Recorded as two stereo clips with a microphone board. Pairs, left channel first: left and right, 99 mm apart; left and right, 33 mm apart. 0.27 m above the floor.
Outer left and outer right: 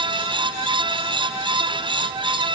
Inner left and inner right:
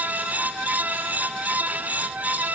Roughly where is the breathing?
I don't hear breathing.